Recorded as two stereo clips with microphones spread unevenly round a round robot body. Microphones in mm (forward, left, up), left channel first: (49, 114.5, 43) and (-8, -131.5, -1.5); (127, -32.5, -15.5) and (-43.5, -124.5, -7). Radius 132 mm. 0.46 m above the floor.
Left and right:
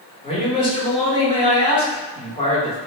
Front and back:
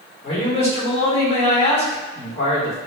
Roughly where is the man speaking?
Ahead.